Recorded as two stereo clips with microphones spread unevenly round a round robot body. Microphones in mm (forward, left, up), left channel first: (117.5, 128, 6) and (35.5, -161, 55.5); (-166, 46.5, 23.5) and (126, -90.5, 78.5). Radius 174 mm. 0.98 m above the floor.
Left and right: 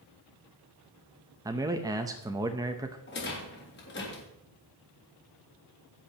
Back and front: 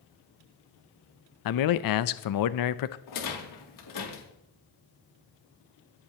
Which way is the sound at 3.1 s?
130° left.